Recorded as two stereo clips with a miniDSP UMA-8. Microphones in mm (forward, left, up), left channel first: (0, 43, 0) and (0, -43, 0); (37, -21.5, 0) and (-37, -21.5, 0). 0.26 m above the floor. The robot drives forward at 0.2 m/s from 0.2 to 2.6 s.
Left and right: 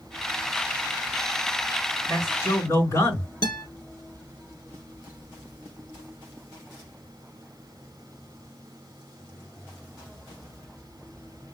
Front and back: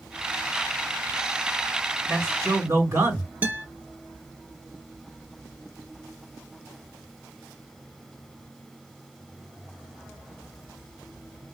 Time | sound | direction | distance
2.1 | a man speaking | 130° left | 3 m
3.4 | a guitar | 115° left | 1.5 m